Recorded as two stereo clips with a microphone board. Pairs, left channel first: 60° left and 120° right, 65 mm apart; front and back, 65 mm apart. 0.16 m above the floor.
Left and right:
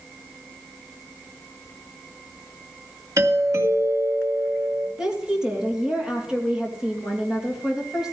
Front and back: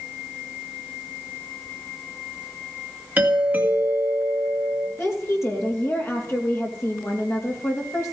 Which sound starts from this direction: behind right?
A doorbell, at 3.2 s.